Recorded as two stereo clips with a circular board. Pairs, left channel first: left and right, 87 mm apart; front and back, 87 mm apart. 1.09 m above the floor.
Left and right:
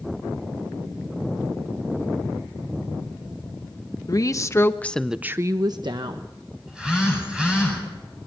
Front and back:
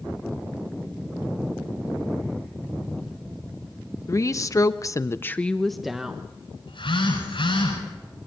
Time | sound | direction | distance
4.1 | a woman speaking | 50° left | 1.3 m
6.7 | a phone buzzing | 10° right | 9.5 m